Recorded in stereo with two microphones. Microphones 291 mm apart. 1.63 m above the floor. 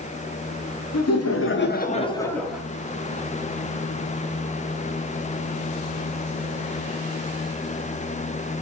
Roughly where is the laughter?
Left.